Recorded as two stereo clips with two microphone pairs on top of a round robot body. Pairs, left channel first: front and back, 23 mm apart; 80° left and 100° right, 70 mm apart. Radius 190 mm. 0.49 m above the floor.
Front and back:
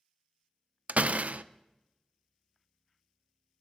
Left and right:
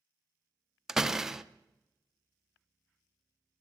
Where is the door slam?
Straight behind, 0.6 m.